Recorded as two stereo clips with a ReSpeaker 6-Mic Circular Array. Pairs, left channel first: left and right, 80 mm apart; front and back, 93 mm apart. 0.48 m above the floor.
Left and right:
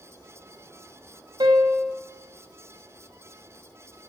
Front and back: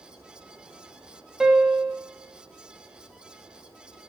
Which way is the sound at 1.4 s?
100° right.